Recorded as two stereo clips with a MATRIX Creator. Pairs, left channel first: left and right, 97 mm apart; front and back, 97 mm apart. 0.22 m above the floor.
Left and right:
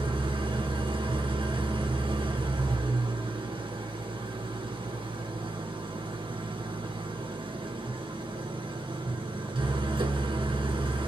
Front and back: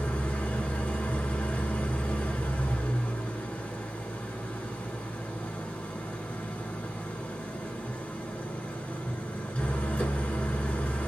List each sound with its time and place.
0.0 s an engine running: 75° right, 1.7 m